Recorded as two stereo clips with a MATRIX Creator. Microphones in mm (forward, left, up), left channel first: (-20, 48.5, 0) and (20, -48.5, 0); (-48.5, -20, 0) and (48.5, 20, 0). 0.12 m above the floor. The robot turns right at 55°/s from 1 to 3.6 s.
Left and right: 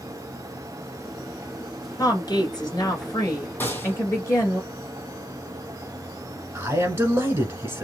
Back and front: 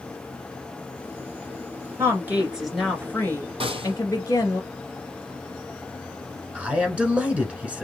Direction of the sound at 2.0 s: 70° left.